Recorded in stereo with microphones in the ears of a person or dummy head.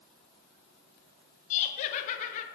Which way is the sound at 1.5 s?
45° left (ahead or behind).